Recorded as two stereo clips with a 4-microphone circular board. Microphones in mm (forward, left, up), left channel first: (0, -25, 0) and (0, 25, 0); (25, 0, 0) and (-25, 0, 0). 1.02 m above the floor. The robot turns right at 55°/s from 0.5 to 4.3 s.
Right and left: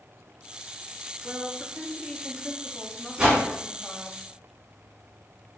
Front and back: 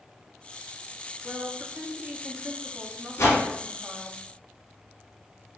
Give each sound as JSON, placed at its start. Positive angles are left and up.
{"t": 1.2, "sound": "a woman speaking", "azimuth_deg": 100, "distance_m": 0.7}
{"t": 3.2, "sound": "a whoosh", "azimuth_deg": 20, "distance_m": 2.0}